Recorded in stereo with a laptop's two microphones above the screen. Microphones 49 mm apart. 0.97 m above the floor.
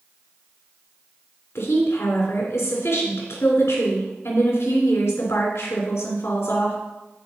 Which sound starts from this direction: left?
A woman speaking, at 1.6 s.